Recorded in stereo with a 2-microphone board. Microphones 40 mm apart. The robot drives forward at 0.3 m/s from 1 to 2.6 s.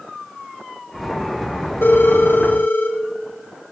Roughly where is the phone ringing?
Left.